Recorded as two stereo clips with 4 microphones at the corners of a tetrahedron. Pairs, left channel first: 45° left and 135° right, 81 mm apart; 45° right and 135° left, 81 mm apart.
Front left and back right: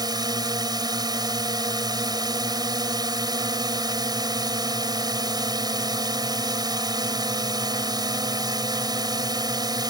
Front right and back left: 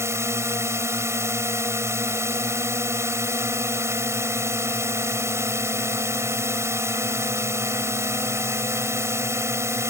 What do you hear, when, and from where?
0.0 s a drone: 170° right